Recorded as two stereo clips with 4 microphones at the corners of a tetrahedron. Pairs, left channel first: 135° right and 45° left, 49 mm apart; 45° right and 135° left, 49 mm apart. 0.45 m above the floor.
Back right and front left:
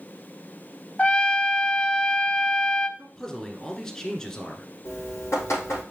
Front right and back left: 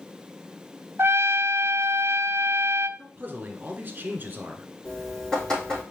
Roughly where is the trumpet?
Behind.